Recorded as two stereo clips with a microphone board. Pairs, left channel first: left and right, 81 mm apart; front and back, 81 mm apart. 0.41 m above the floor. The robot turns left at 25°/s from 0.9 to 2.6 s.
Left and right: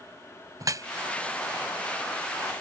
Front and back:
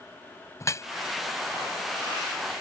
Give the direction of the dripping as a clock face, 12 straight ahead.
2 o'clock.